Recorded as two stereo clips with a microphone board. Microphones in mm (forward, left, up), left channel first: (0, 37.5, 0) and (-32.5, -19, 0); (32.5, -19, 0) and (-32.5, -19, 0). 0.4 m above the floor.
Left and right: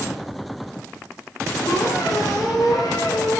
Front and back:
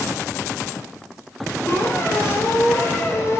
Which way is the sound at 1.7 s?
45° left.